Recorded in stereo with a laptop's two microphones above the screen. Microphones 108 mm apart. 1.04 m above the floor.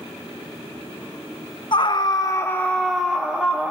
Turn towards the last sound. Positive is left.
turn(degrees=-15)  # may be behind; listen again after turning